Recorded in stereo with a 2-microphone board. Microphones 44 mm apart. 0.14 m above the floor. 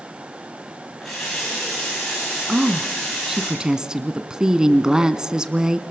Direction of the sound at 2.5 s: 15° right (ahead or behind).